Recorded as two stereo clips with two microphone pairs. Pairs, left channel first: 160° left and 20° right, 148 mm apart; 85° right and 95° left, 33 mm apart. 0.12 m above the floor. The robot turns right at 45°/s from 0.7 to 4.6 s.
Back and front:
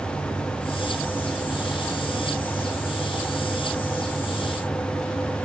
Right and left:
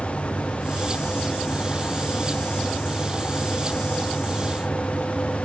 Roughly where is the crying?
No crying in this recording.